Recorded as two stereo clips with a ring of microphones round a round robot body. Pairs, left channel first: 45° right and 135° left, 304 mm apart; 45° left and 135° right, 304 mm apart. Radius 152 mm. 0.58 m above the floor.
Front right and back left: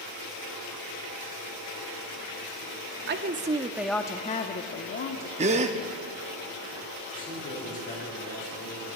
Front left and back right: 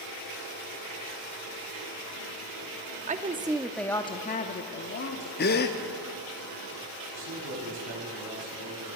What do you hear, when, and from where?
3.1 s a woman speaking: 170° left, 0.7 m; by 5.3 s straight ahead, 1.1 m
5.4 s a gasp: 80° left, 0.7 m
7.1 s a man speaking: 110° right, 5 m